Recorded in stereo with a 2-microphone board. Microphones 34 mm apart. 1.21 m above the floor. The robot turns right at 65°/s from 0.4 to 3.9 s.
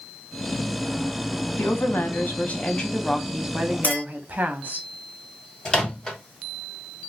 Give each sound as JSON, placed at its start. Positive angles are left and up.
{"t": 1.6, "sound": "a woman speaking", "azimuth_deg": 75, "distance_m": 0.8}
{"t": 3.8, "sound": "a clink", "side_deg": 45, "distance_m": 1.7}
{"t": 5.7, "sound": "a microwave", "side_deg": 20, "distance_m": 0.8}